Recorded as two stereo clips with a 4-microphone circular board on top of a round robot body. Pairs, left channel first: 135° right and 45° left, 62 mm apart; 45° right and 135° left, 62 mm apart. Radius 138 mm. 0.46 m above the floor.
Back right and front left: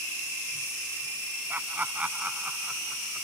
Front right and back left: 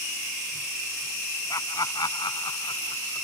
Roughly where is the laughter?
Ahead.